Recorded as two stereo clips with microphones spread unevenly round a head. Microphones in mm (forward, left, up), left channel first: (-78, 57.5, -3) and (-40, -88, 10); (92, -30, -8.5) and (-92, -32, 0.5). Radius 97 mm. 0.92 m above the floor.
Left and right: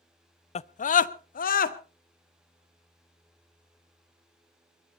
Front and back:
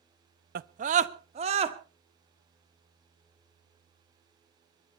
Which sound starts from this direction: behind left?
A scream, at 0.6 s.